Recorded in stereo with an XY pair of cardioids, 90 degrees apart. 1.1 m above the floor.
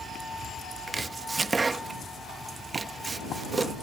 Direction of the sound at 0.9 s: 35° right.